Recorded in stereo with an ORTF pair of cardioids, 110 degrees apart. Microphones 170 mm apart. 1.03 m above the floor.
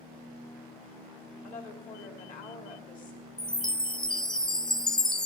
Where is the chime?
5° left, 0.6 m.